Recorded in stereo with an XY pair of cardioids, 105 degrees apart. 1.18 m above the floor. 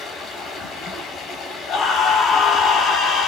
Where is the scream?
70° left, 4 m.